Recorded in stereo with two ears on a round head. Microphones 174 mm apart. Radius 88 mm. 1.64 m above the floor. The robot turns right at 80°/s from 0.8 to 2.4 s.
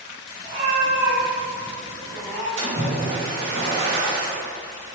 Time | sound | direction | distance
0.4 | a cat meowing | 110° right | 1.9 m
2.6 | a splash | 70° right (ahead or behind) | 2 m